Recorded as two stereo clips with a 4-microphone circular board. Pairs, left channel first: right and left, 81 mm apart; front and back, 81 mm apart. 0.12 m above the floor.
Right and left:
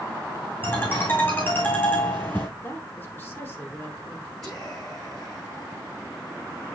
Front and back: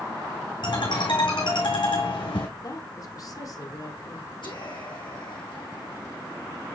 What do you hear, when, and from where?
0.6 s a ringtone: 20° right, 3.5 m
2.6 s a woman speaking: 30° right, 3 m
4.4 s whispering: 5° right, 4 m